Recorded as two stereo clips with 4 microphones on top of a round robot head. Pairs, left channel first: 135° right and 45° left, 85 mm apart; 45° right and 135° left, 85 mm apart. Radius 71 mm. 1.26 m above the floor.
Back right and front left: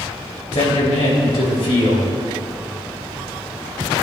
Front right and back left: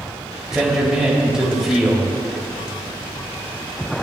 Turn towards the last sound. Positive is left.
turn(degrees=-145)